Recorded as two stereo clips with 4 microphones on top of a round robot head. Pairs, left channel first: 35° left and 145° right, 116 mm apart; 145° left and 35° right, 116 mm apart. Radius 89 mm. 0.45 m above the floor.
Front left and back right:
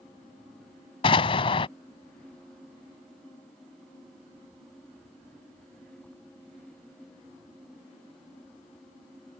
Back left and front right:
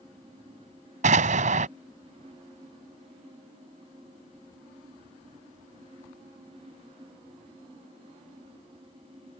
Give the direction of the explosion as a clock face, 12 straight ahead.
12 o'clock.